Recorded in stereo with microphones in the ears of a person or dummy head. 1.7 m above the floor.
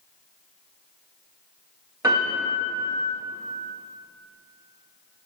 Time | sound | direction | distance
2.0 | a piano | 20° right (ahead or behind) | 2.5 m